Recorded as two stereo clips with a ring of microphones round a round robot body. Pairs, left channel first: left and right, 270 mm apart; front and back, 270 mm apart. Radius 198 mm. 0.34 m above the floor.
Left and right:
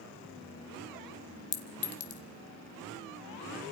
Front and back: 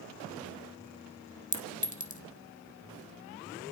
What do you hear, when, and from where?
1.5 s a clink: 60° left, 1.8 m